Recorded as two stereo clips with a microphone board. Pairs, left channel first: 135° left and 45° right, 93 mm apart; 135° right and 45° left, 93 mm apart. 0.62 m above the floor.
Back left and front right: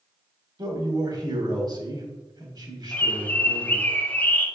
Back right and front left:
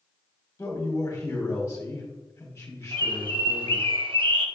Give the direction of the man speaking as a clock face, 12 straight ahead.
3 o'clock.